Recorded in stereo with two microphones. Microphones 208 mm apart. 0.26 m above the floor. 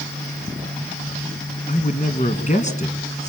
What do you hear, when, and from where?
1.7 s a man speaking: 35° left (ahead or behind), 3 m